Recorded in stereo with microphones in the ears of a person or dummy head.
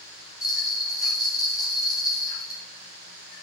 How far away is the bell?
About 1.4 m.